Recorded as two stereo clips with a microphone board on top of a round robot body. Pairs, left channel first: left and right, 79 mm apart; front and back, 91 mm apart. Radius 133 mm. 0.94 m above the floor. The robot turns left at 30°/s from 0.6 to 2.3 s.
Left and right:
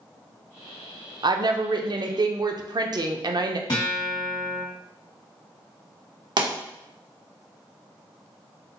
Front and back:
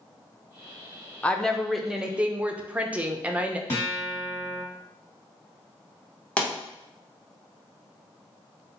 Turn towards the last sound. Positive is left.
turn(degrees=-75)